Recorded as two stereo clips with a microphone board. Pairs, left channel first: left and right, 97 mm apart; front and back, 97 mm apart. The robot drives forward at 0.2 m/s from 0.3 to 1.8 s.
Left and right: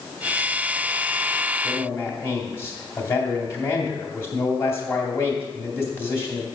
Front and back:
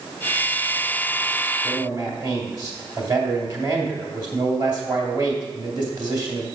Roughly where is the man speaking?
Behind left.